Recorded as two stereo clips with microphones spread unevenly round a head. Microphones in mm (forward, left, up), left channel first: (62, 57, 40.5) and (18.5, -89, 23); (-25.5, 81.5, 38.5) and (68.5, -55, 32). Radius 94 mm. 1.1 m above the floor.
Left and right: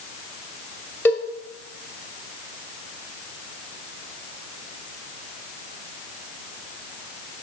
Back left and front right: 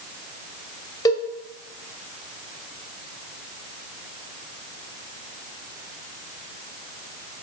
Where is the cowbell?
105° left, 0.7 m.